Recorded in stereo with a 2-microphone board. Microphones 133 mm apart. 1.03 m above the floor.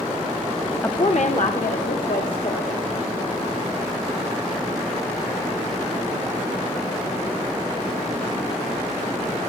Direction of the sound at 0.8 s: 20° left (ahead or behind).